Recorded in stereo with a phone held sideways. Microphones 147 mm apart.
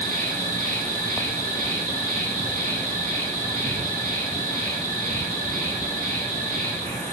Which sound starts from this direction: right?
An insect, at 0.0 s.